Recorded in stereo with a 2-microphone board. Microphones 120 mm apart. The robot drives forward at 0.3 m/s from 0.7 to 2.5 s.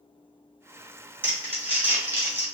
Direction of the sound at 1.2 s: 20° right (ahead or behind).